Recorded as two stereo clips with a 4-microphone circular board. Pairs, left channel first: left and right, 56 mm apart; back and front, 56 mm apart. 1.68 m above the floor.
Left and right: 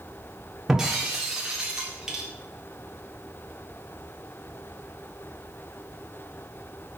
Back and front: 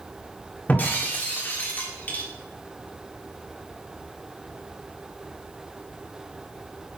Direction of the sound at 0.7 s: 160° right.